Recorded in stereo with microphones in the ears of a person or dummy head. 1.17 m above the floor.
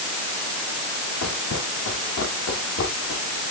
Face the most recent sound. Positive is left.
turn(degrees=75)  # may be behind; listen again after turning